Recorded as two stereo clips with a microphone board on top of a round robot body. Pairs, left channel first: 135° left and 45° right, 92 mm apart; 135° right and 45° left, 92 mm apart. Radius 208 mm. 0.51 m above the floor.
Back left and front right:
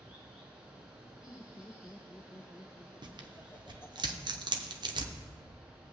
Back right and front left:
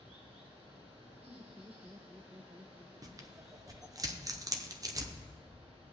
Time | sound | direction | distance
0.0 | running water | 35° left | 2.5 m
1.3 | laughter | 85° left | 0.9 m
3.0 | tearing paper | 5° right | 0.9 m